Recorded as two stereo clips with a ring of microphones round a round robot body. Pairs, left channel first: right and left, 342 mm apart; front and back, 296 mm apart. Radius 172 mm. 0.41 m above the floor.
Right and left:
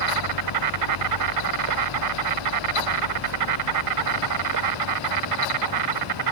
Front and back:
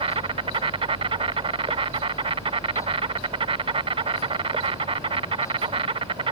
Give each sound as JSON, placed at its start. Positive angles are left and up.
{"t": 0.0, "sound": "an insect", "azimuth_deg": 110}